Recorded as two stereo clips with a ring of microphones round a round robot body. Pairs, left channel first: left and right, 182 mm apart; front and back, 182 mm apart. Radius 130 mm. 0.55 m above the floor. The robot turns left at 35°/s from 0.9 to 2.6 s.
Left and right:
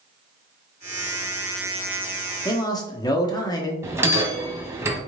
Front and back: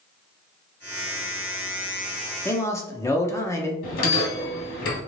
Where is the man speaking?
60° left, 0.8 m; by 3.7 s 55° left, 0.8 m.